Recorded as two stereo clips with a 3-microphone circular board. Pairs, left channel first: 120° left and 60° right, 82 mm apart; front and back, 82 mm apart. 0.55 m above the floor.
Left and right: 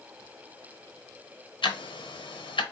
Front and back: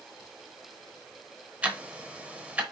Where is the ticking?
110° left, 0.9 m.